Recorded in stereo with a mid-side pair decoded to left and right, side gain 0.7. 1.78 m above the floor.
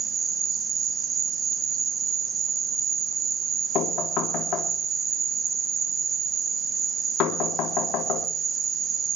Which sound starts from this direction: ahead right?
An insect, at 0.0 s.